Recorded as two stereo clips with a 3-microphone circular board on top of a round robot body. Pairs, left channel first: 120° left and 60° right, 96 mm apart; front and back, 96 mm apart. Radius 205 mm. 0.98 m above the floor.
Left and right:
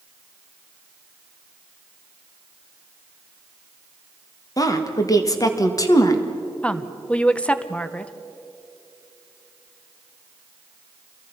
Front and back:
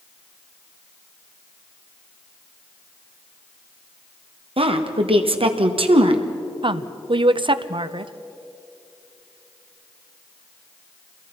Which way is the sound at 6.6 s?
165° right.